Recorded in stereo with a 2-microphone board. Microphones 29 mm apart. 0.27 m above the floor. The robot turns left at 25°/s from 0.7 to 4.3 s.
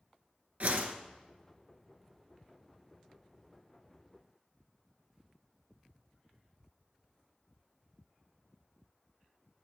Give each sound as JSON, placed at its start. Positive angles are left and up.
{"t": 0.6, "sound": "a whoosh", "side_deg": -55, "distance_m": 0.8}